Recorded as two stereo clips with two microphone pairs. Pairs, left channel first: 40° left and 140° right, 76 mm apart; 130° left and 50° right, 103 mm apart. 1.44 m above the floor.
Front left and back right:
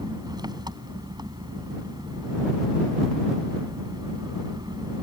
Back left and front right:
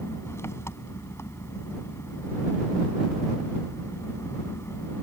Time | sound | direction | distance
0.0 | an engine running | 170° right | ?